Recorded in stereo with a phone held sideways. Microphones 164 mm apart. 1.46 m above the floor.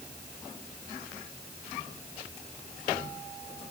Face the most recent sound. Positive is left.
No sound to turn to.